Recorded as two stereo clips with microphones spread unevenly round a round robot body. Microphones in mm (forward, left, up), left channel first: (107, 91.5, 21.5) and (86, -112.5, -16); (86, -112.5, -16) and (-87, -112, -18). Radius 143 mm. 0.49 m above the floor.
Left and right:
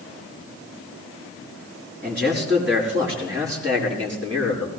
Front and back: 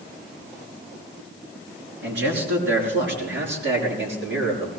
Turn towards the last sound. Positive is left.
turn(degrees=-175)